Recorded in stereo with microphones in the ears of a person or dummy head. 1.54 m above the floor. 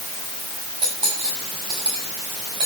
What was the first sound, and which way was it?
Cutlery clinking, 30° right (ahead or behind).